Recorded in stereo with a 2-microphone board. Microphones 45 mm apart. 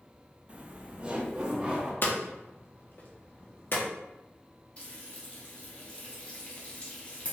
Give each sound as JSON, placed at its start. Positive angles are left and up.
{"t": 0.5, "sound": "laughter", "side_deg": -30, "distance_m": 0.6}
{"t": 2.0, "sound": "hammering", "side_deg": 45, "distance_m": 0.9}
{"t": 4.8, "sound": "frying", "side_deg": 30, "distance_m": 1.3}